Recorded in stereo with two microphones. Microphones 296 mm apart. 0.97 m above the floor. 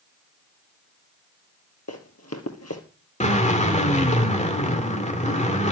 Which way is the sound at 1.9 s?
55° left (ahead or behind).